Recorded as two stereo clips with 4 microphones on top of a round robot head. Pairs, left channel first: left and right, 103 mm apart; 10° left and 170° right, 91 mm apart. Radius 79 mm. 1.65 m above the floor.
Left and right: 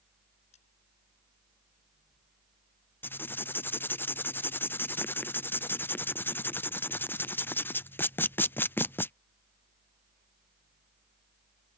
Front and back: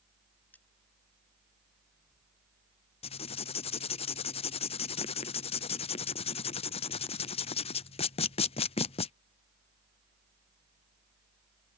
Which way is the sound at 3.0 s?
20° left.